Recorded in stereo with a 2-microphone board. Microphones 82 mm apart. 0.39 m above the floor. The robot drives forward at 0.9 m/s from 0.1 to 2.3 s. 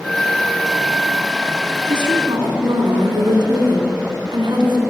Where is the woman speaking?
75° right (ahead or behind), 4 m.